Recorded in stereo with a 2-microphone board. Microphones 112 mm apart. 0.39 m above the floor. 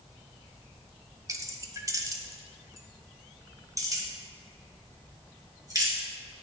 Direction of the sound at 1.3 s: 30° right (ahead or behind).